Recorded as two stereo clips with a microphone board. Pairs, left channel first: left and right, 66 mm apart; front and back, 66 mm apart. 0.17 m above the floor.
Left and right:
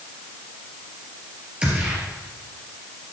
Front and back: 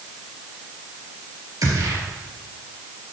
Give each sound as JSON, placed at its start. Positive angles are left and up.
{"t": 1.6, "sound": "a gunshot", "azimuth_deg": -165, "distance_m": 3.0}